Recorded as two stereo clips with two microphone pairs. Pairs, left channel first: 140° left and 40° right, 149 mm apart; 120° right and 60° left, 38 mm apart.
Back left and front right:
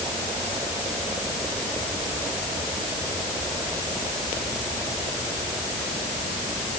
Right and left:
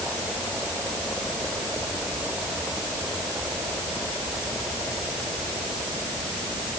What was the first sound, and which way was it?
Only background noise.